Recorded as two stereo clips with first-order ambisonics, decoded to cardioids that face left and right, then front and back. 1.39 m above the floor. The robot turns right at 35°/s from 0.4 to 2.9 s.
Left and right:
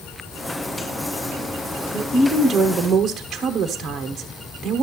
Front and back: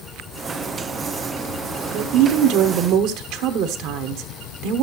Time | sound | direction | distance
1.9 | a woman speaking | 165° left | 1.0 m